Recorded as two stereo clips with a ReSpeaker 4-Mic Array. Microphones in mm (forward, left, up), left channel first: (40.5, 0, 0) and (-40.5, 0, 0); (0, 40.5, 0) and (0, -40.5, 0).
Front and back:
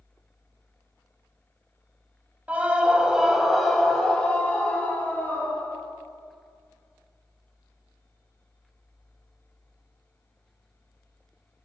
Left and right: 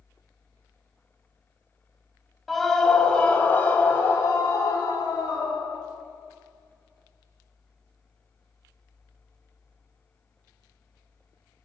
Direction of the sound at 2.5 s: Straight behind.